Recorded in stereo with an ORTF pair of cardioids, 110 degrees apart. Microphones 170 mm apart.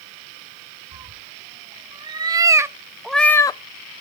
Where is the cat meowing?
35° right, 1.6 m; by 3.6 s 45° left, 0.5 m.